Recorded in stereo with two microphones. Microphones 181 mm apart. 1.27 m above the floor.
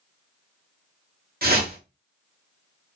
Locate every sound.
1.4 s a whoosh: 55° right (ahead or behind), 0.8 m